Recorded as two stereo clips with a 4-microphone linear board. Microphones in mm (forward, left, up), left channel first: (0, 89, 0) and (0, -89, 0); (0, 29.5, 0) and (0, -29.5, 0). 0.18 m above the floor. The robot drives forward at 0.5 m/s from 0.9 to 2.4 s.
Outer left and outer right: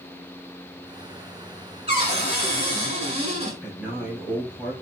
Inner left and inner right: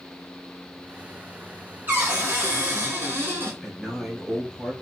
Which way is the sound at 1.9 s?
35° right (ahead or behind).